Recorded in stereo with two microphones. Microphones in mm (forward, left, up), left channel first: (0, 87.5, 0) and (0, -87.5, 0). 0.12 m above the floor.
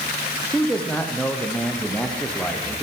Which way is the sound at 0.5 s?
5° left (ahead or behind).